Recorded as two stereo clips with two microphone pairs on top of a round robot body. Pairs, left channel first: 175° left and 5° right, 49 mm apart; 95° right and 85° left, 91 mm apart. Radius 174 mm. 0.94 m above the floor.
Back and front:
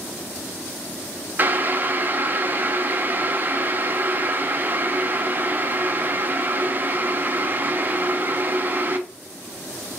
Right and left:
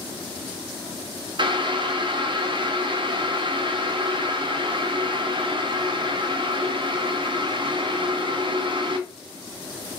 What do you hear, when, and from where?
1.4 s boiling: 55° left, 0.8 m